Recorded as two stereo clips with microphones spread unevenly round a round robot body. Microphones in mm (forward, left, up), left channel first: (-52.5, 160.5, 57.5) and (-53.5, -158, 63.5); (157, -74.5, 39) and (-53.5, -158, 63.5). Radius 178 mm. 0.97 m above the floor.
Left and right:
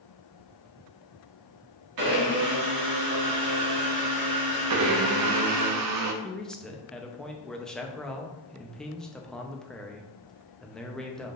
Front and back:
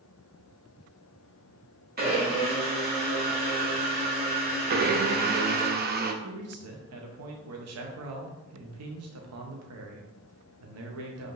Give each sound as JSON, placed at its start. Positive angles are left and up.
{"t": 2.0, "sound": "a blender", "azimuth_deg": -110, "distance_m": 2.0}
{"t": 4.7, "sound": "a blender", "azimuth_deg": -120, "distance_m": 0.5}
{"t": 6.2, "sound": "a man speaking", "azimuth_deg": 180, "distance_m": 0.8}